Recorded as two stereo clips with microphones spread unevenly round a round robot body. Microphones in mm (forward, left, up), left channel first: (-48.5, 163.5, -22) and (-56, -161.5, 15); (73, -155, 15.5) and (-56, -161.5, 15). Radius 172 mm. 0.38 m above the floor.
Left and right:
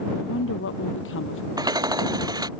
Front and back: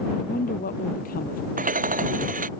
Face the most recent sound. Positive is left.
turn(degrees=-170)